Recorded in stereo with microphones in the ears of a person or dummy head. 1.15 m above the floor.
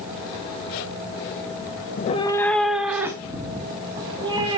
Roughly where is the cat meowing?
Left.